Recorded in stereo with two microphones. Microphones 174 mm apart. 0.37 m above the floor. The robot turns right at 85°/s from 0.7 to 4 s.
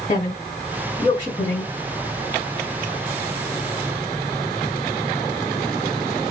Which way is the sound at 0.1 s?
40° left (ahead or behind).